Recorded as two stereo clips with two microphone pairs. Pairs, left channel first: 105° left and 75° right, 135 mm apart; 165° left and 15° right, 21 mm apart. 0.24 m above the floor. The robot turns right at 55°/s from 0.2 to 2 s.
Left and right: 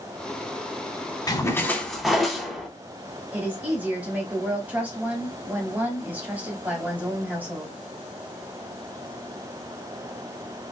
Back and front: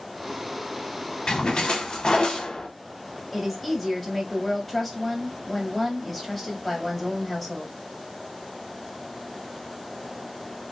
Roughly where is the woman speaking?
Behind right.